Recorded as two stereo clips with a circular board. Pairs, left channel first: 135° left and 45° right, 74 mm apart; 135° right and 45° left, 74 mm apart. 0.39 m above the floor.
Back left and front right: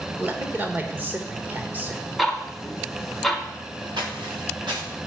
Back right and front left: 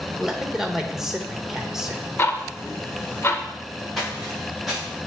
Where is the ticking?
140° right, 0.7 m.